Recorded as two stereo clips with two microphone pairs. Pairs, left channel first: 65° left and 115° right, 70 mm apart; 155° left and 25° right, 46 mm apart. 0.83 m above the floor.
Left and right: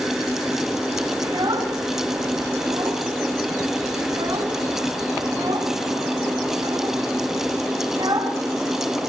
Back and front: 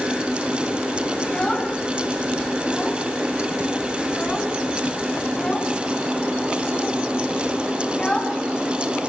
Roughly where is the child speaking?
Behind right.